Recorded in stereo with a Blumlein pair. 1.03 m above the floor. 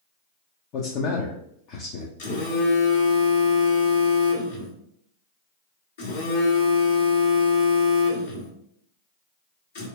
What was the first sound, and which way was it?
A man speaking, 40° left.